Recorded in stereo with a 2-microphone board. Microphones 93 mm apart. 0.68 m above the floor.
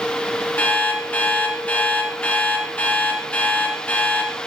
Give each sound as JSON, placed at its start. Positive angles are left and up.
{"t": 0.6, "sound": "an alarm clock", "side_deg": 20, "distance_m": 5.0}